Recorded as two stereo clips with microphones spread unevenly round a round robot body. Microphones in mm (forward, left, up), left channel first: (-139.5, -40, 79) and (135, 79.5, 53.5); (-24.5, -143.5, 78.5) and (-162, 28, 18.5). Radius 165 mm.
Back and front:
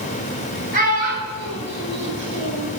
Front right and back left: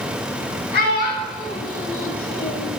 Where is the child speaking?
40° right, 4.5 m; by 2.7 s 25° right, 5 m.